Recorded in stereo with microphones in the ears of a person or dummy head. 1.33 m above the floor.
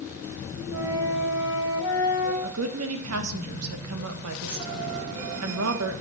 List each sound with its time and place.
0.7 s a flute: 15° right (ahead or behind), 3.5 m
2.4 s a woman speaking: 80° right, 1.2 m